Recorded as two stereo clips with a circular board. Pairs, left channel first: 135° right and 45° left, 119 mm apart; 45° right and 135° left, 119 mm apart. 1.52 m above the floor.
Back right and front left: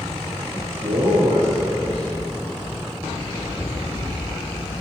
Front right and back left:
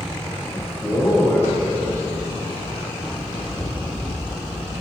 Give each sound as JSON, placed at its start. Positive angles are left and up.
{"t": 0.5, "sound": "a man speaking", "azimuth_deg": 25, "distance_m": 2.5}
{"t": 3.1, "sound": "running footsteps", "azimuth_deg": -70, "distance_m": 2.5}